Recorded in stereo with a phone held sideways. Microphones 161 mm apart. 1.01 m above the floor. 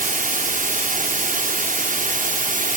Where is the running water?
55° right (ahead or behind), 0.8 m.